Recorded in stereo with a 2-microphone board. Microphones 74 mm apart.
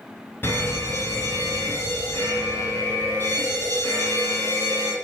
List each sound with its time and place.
0.4 s an alarm: 30° left (ahead or behind), 4.5 m